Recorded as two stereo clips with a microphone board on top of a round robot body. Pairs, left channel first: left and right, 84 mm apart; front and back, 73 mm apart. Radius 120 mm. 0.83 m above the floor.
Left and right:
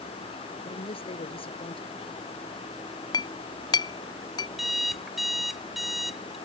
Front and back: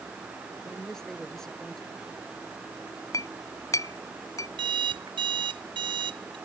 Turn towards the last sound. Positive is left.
turn(degrees=180)